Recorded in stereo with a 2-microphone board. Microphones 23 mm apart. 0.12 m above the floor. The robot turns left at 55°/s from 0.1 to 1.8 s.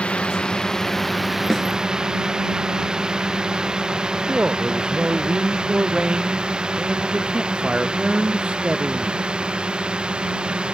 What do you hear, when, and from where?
0.0 s a drone: 65° left (ahead or behind); by 10.7 s 50° right (ahead or behind)
1.5 s a snare drum: 25° left (ahead or behind); by 1.7 s 20° left (ahead or behind)
4.3 s a man speaking: 50° right (ahead or behind)